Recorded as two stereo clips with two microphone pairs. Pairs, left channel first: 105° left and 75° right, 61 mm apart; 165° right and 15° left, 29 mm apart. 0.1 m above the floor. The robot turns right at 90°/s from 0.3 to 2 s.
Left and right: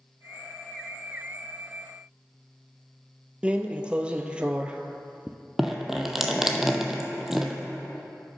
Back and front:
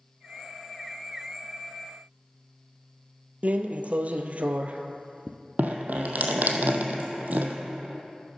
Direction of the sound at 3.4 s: 5° right.